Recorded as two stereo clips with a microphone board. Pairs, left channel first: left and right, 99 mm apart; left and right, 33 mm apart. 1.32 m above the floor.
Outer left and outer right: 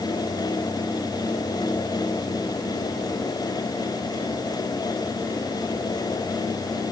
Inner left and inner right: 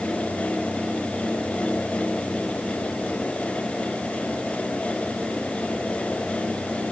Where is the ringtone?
I don't hear a ringtone.